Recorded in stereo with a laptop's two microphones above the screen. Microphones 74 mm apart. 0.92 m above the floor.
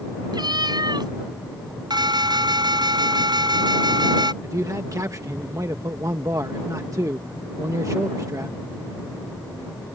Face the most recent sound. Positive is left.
turn(degrees=-50)  # may be behind; listen again after turning